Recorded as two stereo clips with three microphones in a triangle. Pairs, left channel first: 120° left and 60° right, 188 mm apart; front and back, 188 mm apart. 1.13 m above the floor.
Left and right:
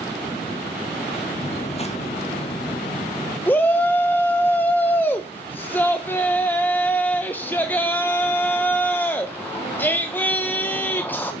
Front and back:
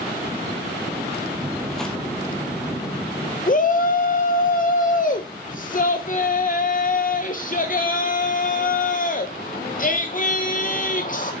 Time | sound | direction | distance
1.4 | footsteps | 100° left | 1.4 m
3.5 | a shout | 40° left | 0.5 m